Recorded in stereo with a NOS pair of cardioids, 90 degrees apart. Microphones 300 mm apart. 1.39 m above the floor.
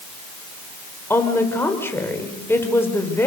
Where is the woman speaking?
5° left, 5.5 m.